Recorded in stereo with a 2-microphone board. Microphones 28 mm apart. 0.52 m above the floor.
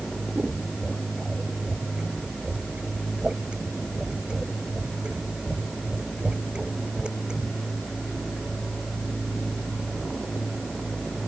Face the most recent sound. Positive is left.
turn(degrees=-35)  # may be behind; listen again after turning